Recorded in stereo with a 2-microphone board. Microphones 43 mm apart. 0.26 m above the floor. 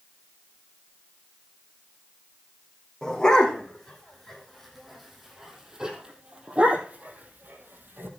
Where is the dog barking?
15° left (ahead or behind), 4.5 m; by 8.1 s 55° right (ahead or behind), 3 m.